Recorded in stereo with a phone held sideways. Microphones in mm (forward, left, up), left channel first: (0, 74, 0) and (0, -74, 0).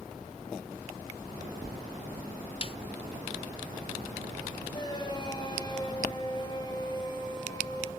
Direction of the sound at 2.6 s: 40° left (ahead or behind).